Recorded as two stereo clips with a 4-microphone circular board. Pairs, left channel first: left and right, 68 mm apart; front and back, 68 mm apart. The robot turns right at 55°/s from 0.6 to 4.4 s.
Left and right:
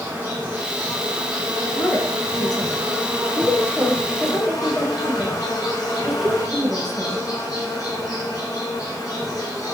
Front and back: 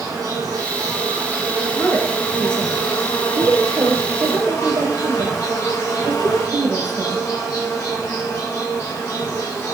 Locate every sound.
0.0 s an insect: 160° right, 7 m; by 9.7 s 50° left, 7 m
1.7 s a woman speaking: 40° left, 3.5 m; by 7.3 s 175° right, 3.5 m